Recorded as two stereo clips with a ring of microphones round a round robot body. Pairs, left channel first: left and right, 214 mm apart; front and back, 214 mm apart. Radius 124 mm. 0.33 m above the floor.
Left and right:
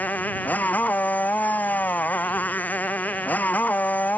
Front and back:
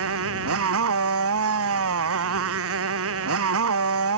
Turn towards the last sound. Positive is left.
turn(degrees=175)